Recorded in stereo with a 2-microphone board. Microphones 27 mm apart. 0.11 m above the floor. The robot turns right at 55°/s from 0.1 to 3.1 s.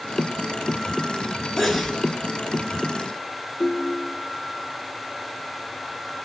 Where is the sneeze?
Centre (ahead or behind), 1.5 m; by 2.0 s 10° right (ahead or behind), 1.5 m.